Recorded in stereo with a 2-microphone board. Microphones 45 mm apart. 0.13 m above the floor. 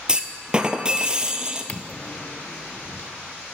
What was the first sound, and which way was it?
A clunk, 20° right (ahead or behind).